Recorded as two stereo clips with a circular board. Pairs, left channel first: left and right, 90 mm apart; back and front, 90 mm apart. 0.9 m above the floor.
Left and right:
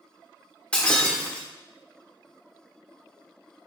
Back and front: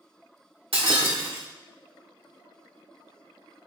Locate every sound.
0.7 s breaking glass: 10° left, 1.5 m